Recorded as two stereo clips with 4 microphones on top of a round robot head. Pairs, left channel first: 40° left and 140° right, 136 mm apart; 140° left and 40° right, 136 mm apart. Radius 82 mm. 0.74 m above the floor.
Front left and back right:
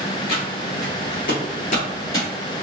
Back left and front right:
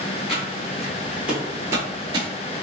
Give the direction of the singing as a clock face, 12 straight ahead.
I don't hear singing.